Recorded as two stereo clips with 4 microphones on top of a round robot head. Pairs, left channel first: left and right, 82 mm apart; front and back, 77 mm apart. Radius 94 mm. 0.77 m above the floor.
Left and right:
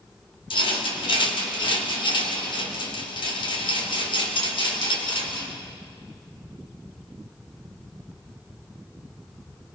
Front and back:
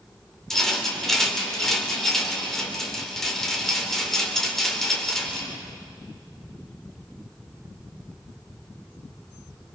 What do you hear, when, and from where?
0.5 s a rattle: 85° left, 3.5 m